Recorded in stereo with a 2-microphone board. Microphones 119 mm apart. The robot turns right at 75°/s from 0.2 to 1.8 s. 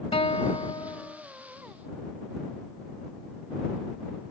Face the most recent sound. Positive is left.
turn(degrees=-160)